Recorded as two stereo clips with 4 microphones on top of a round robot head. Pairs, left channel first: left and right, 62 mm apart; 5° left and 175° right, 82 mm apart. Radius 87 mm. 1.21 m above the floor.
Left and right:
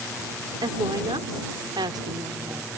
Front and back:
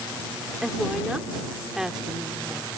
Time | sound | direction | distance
0.6 | a woman speaking | 90° right | ?